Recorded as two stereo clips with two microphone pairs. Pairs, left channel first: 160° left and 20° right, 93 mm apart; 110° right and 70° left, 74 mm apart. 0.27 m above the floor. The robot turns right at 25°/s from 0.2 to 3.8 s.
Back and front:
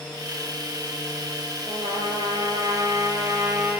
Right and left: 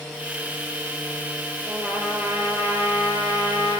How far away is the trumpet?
About 6 m.